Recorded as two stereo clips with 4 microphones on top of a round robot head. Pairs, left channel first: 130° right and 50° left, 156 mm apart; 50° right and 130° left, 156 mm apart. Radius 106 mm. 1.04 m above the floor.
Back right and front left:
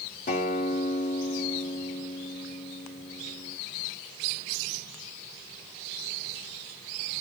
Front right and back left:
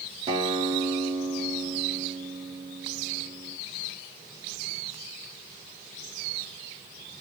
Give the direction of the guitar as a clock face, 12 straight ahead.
6 o'clock.